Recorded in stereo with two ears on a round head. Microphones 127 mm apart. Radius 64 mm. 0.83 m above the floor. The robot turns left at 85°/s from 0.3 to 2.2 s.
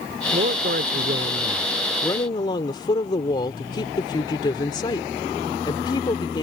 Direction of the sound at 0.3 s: 55° right.